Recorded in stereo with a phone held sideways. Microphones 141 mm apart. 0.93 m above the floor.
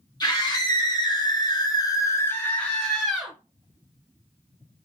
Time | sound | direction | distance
0.2 | a scream | 30° left (ahead or behind) | 1.4 m